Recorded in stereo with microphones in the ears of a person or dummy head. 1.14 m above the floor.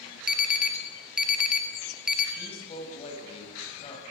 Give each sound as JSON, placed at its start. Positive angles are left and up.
{"t": 0.3, "sound": "an alarm", "side_deg": 5, "distance_m": 2.0}
{"t": 2.4, "sound": "a woman speaking", "side_deg": 40, "distance_m": 8.5}